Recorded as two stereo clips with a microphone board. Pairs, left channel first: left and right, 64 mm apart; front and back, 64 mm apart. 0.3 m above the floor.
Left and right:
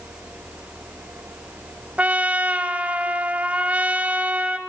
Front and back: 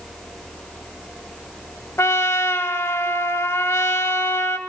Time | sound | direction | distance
2.0 | a trumpet | 30° right | 0.6 m